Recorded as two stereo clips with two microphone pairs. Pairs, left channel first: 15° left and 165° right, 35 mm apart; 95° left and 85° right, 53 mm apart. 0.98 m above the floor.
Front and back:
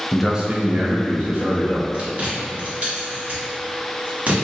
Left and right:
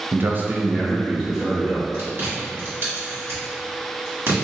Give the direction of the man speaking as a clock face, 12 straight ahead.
2 o'clock.